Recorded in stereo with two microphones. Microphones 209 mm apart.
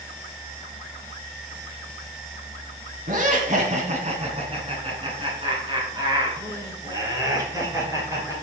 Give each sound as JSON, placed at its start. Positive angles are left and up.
{"t": 3.1, "sound": "laughter", "side_deg": -40, "distance_m": 2.5}